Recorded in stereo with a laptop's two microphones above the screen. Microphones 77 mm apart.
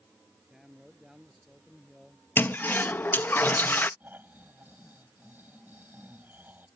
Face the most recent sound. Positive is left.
turn(degrees=-25)  # may be behind; listen again after turning